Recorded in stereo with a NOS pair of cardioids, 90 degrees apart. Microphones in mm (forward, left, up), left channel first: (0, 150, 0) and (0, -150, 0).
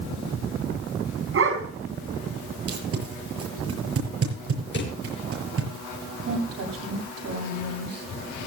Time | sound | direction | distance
1.3 | a dog barking | 50° right | 4 m
2.7 | tape being pulled | 50° right | 6.5 m
4.7 | a drawer | 40° left | 6 m
6.2 | a woman speaking | 55° right | 8.5 m